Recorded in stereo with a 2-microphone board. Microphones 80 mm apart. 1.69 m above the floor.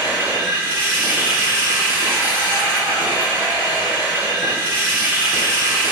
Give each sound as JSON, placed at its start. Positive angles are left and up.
{"t": 0.0, "sound": "running water", "side_deg": -20, "distance_m": 2.0}